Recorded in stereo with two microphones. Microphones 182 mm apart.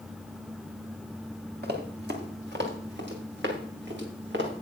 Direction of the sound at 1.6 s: 65° right (ahead or behind).